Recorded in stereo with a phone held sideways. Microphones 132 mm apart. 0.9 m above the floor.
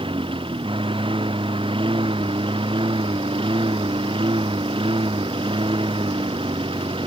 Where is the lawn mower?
40° right (ahead or behind).